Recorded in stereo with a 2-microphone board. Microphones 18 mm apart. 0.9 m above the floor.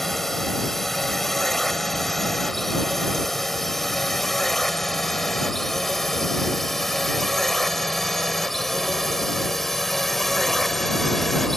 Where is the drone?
10° left (ahead or behind).